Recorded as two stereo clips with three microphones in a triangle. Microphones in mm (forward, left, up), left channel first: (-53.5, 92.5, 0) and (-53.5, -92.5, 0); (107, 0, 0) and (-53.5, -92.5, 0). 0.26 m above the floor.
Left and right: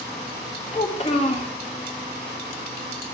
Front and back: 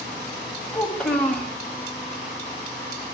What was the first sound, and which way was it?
A child speaking, 110° left.